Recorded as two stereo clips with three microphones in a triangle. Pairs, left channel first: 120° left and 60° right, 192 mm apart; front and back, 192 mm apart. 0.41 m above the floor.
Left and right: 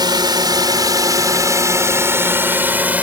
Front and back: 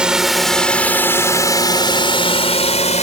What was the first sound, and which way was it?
A drone, 100° right.